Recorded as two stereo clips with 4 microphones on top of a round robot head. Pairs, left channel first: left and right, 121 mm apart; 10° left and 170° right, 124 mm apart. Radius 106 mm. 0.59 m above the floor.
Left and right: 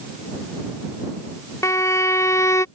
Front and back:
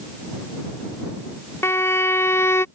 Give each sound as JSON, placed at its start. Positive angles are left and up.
{"t": 1.6, "sound": "a violin", "azimuth_deg": 55}